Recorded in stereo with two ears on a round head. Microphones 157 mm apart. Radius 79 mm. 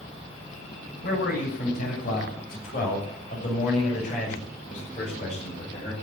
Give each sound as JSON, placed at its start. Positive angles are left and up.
{"t": 1.0, "sound": "a man speaking", "side_deg": 60, "distance_m": 8.0}